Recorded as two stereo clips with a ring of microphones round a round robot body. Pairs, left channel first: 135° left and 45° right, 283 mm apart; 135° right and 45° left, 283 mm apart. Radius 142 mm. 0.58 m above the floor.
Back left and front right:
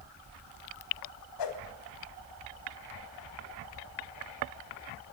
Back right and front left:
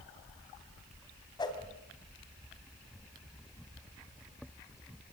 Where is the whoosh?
150° left, 3 m.